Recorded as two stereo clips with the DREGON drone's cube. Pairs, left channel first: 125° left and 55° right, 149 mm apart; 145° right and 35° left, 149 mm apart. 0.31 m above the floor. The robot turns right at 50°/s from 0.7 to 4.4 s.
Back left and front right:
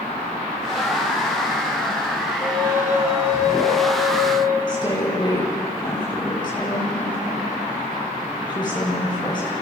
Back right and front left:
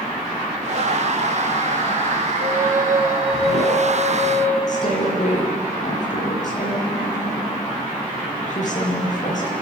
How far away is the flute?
About 4 m.